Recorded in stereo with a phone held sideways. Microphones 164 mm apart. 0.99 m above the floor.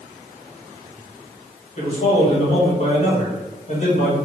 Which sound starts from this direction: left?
A man speaking, at 1.8 s.